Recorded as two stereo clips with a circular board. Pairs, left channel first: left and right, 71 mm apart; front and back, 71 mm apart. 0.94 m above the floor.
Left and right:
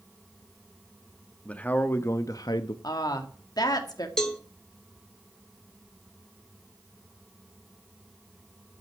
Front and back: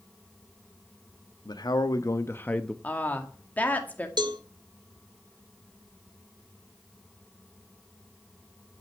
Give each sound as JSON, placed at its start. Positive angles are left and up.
{"t": 1.4, "sound": "a man speaking", "azimuth_deg": 15, "distance_m": 1.4}
{"t": 2.8, "sound": "a woman speaking", "azimuth_deg": 65, "distance_m": 1.9}
{"t": 4.2, "sound": "a cowbell", "azimuth_deg": 175, "distance_m": 1.6}